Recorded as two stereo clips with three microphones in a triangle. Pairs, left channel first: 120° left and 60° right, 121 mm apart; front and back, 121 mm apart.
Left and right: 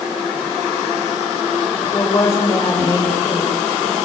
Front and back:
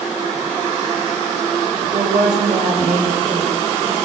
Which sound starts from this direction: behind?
A woman speaking, at 1.8 s.